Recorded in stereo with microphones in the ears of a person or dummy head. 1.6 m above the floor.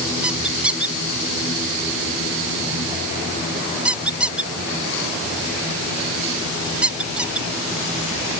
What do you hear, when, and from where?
0.2 s a squeak: 5° right (ahead or behind)